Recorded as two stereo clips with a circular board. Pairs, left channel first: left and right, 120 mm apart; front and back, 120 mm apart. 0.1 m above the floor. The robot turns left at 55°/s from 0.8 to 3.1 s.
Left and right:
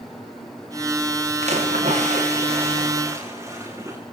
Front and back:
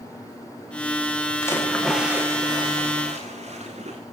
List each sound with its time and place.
1.4 s a splash: 65° right, 9 m; by 4.0 s 155° right, 9 m